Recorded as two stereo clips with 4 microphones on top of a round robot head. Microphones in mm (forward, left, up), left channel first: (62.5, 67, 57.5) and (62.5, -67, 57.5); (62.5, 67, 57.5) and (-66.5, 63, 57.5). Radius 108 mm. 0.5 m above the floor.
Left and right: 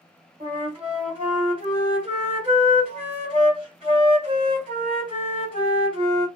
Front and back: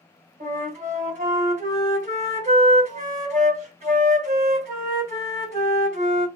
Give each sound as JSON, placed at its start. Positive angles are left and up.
{"t": 0.4, "sound": "a flute", "azimuth_deg": -145, "distance_m": 1.4}